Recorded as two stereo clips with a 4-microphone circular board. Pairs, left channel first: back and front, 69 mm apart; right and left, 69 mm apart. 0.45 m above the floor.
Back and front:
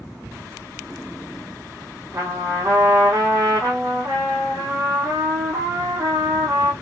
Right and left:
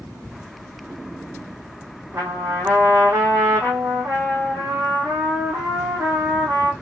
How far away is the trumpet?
About 5.5 m.